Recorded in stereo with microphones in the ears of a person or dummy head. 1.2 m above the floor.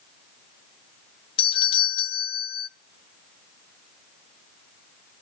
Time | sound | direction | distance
1.4 | a doorbell | 30° left (ahead or behind) | 0.7 m